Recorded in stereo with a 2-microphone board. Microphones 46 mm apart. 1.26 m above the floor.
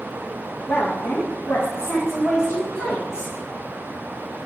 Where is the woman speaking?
65° left (ahead or behind), 1.5 m.